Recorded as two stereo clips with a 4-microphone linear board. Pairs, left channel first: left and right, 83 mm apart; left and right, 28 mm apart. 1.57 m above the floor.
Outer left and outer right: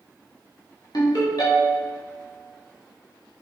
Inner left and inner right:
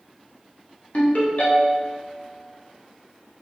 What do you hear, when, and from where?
0.9 s a ringtone: 55° left (ahead or behind), 2 m